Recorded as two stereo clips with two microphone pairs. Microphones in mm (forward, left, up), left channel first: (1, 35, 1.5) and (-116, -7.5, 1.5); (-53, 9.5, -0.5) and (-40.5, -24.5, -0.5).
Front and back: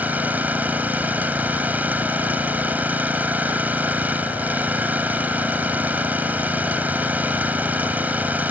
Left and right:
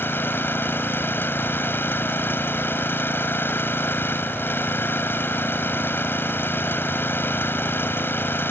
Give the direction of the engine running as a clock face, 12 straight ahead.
8 o'clock.